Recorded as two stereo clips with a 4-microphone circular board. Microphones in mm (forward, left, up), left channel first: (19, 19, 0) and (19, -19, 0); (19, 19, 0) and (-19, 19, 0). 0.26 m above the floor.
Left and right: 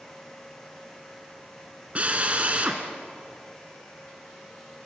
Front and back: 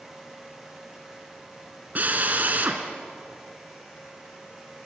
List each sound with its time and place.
1.9 s a drill: 140° right, 2.5 m